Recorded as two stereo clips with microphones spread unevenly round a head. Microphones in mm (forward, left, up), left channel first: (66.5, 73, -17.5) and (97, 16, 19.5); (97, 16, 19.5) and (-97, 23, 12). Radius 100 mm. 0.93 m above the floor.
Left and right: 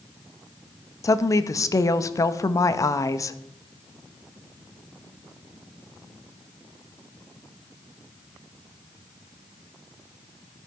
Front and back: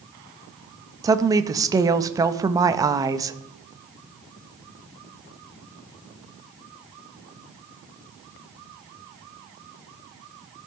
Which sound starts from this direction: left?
A woman speaking, at 1.0 s.